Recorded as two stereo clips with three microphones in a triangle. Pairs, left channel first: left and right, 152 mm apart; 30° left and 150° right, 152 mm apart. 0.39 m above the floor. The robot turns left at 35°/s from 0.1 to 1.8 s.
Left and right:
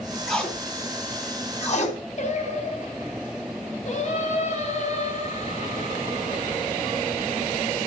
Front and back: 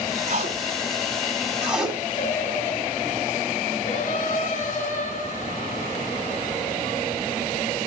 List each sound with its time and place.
0.3 s tape being pulled: 175° left, 3 m; by 2.0 s 125° left, 3 m
2.2 s singing: 55° left, 2.5 m